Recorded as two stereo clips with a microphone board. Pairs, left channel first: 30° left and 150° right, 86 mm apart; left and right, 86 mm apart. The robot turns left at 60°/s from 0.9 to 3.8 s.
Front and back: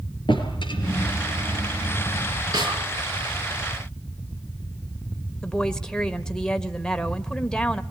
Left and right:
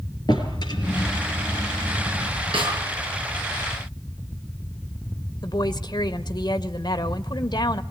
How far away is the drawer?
About 5 m.